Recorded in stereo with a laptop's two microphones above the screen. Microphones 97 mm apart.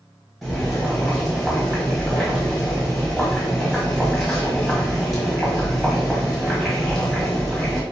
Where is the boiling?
Centre (ahead or behind), 1.3 m.